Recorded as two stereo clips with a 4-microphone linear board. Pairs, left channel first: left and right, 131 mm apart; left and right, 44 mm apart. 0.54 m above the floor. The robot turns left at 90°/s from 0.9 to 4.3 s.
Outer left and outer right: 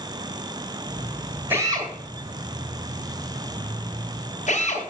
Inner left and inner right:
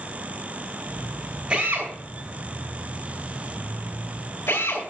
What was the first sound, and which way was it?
A drill, 15° right (ahead or behind).